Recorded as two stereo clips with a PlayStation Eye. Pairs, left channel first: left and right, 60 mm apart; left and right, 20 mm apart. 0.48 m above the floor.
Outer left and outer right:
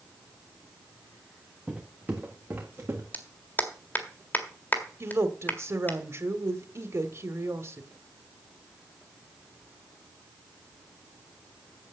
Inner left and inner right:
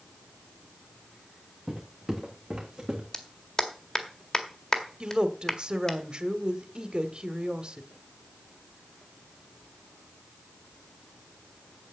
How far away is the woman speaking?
About 1.3 m.